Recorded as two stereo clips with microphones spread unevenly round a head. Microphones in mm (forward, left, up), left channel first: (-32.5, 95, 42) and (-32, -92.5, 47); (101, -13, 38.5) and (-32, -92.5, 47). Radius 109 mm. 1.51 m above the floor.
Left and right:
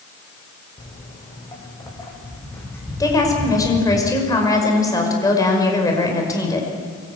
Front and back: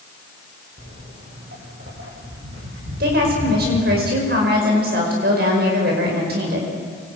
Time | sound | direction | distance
0.8 | footsteps | 155° left | 6.5 m
3.0 | a woman speaking | 165° left | 5.5 m